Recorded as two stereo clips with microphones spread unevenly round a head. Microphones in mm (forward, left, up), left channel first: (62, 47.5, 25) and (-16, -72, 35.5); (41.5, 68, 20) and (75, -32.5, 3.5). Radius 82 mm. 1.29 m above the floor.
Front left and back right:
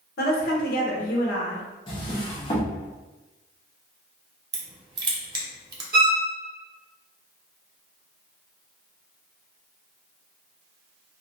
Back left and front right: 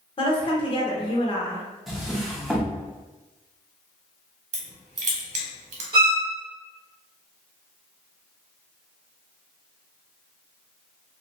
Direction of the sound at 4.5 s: 60° right.